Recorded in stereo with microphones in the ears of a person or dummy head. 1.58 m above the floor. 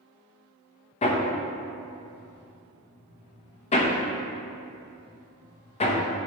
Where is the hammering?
30° left (ahead or behind), 0.9 m.